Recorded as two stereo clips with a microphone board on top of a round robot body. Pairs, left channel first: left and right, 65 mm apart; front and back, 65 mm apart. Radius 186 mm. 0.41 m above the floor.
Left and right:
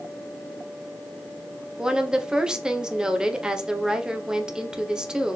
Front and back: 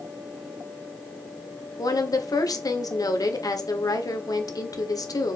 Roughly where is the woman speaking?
Ahead.